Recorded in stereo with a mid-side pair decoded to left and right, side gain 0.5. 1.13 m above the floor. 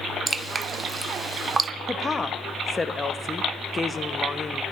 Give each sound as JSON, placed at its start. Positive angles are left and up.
{"t": 0.3, "sound": "dripping", "azimuth_deg": -30, "distance_m": 0.6}
{"t": 1.9, "sound": "a woman speaking", "azimuth_deg": 25, "distance_m": 1.0}